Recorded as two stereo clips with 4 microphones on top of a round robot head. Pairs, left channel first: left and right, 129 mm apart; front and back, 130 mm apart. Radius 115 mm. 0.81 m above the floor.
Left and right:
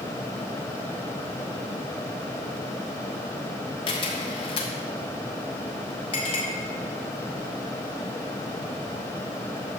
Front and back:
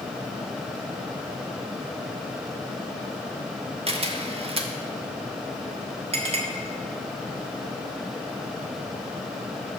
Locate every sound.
3.9 s a camera shutter: 140° left, 1.1 m
6.1 s a clink: 145° left, 1.7 m